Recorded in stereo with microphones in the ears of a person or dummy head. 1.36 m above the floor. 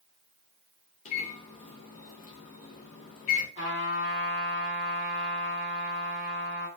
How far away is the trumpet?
About 2.0 m.